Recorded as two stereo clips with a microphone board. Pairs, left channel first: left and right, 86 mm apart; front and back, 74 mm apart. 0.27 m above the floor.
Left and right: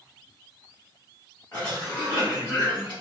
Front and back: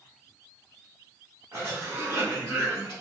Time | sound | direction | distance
1.5 | a cough | 155° left | 1.9 m